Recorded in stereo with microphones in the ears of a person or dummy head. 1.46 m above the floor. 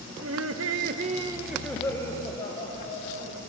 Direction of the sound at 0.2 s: 75° right (ahead or behind).